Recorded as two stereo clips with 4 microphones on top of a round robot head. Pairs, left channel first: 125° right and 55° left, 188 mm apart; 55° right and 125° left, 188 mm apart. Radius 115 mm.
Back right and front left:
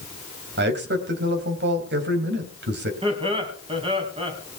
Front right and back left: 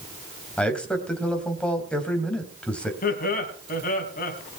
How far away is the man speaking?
About 3 m.